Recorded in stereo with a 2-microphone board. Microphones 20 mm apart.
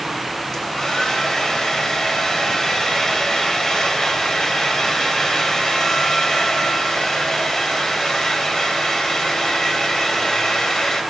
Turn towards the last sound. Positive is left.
turn(degrees=30)  # may be behind; listen again after turning